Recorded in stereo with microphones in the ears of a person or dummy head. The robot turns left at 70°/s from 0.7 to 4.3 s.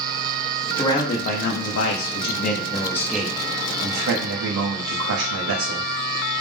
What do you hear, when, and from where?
0.8 s a man speaking: 160° left, 0.7 m; by 5.9 s 85° right, 0.7 m